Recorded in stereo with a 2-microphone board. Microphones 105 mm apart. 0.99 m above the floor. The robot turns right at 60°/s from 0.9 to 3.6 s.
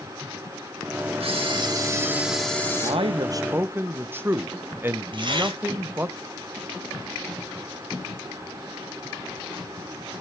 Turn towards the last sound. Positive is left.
turn(degrees=-50)  # may be behind; listen again after turning